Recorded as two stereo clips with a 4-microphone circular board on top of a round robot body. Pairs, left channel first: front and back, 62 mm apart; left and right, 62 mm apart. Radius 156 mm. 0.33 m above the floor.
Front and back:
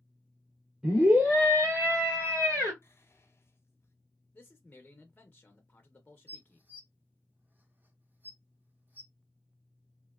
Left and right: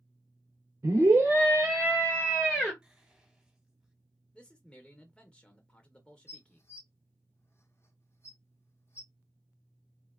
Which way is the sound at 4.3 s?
30° left.